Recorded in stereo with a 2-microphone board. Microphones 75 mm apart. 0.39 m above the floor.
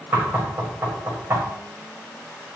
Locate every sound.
0.1 s knocking: 35° right (ahead or behind), 1.2 m